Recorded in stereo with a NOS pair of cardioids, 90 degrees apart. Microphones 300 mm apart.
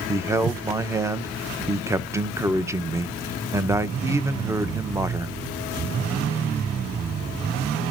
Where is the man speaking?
10° right, 0.7 m.